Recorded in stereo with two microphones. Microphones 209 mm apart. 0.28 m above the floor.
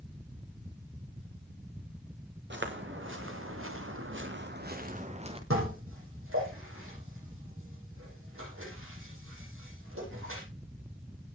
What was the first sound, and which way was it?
Footsteps, 60° right (ahead or behind).